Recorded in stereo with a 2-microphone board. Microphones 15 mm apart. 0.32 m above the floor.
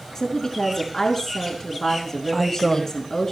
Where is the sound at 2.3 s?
5° left (ahead or behind), 1.3 m.